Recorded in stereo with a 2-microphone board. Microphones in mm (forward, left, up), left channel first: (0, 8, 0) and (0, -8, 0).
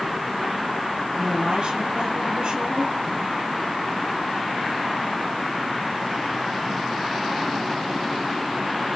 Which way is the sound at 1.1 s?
70° right (ahead or behind).